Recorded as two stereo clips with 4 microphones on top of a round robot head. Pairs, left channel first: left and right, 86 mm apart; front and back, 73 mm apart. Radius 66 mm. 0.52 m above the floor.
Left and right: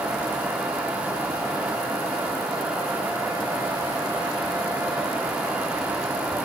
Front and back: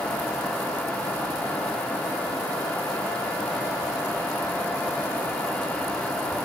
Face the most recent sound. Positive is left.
No sound to turn to.